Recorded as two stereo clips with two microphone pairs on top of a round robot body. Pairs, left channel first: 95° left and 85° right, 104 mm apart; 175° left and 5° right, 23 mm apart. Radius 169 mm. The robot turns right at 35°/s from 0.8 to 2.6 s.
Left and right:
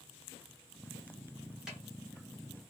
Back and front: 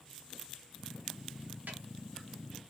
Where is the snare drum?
Straight ahead, 1.3 m; by 1.8 s 5° left, 1.3 m.